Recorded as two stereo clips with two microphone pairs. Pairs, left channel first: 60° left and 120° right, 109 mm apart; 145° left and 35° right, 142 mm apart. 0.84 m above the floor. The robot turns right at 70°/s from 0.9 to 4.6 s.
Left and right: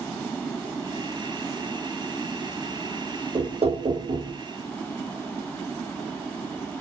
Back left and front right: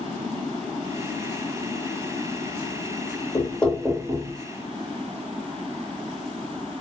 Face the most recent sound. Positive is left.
turn(degrees=-65)